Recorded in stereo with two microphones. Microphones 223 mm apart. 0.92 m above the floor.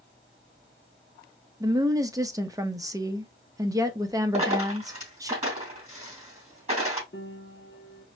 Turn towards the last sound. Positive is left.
turn(degrees=55)  # may be behind; listen again after turning